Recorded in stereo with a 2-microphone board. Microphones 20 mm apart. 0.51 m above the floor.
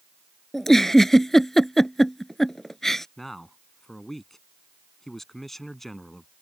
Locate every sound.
0.5 s a giggle: 15° left (ahead or behind)
3.2 s a man speaking: 15° left (ahead or behind)